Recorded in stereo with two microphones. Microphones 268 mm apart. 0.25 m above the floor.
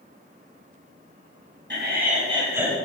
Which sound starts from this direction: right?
Laughter, at 1.7 s.